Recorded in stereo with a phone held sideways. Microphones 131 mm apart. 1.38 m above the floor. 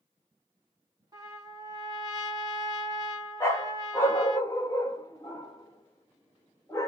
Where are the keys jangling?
I don't hear keys jangling.